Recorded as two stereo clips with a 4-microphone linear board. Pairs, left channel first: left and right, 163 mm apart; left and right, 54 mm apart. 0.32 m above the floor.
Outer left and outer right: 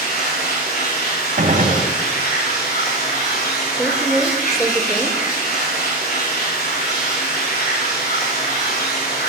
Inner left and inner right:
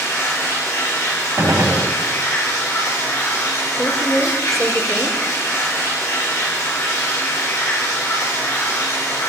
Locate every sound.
0.0 s running water: 65° left (ahead or behind), 5.5 m
1.4 s a gunshot: 55° right (ahead or behind), 1.4 m
3.7 s a woman speaking: 5° left (ahead or behind), 1.0 m